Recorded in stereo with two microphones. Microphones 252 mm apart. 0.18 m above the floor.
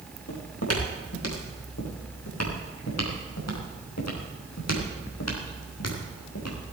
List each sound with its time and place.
0.3 s footsteps: 70° left (ahead or behind), 6 m; by 6.6 s 75° left (ahead or behind), 5 m